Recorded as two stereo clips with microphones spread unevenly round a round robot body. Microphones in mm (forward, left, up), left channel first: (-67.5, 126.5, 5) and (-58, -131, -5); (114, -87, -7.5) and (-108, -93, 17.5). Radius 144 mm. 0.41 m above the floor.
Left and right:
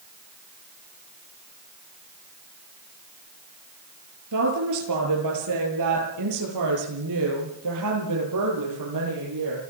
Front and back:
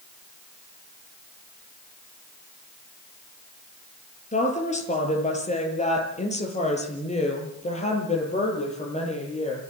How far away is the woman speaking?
About 7.5 m.